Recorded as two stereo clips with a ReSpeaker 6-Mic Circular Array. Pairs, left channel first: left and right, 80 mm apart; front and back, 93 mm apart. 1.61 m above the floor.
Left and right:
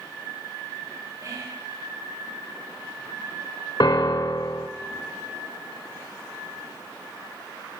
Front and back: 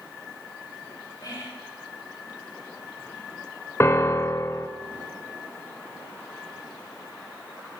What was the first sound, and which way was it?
Whispering, 45° right.